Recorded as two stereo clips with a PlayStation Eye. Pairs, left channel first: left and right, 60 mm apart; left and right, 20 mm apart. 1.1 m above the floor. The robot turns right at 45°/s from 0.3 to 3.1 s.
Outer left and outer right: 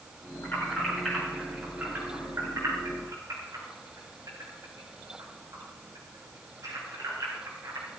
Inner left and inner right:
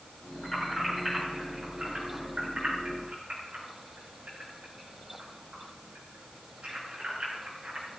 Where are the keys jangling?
40° left (ahead or behind), 9 m; by 7.9 s 80° right, 9 m.